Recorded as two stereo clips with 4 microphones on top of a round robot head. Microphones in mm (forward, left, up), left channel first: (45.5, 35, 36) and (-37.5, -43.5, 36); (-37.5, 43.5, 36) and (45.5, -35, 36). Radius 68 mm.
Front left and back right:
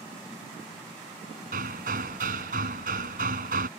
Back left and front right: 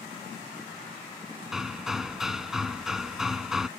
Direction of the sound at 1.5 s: 130° right.